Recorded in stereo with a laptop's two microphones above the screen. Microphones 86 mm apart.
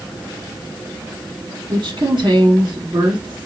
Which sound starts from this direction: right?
A woman speaking, at 1.7 s.